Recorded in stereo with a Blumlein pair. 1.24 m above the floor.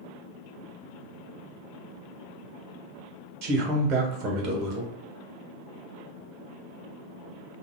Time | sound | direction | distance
3.4 | a man speaking | 40° right | 0.9 m